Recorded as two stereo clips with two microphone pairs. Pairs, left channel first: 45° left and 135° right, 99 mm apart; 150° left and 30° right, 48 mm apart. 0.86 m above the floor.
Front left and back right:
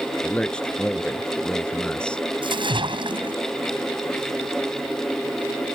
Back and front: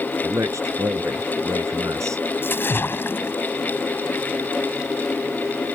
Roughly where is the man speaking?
Ahead right.